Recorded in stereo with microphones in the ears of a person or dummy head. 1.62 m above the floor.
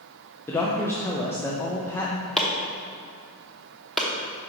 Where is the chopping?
Centre (ahead or behind), 0.9 m.